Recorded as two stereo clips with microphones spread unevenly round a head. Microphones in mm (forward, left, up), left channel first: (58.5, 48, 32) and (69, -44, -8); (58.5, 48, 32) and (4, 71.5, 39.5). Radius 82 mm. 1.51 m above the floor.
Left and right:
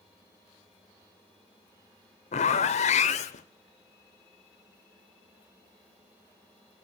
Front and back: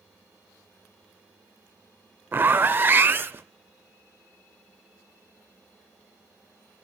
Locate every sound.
2.3 s a zipper: 95° left, 0.7 m